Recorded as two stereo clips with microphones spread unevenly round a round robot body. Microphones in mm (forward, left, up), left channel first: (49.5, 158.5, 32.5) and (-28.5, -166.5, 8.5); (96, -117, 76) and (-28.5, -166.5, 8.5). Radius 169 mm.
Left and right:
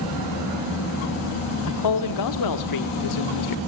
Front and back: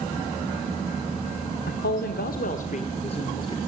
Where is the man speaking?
45° left, 1.6 m; by 3.6 s 105° left, 1.9 m.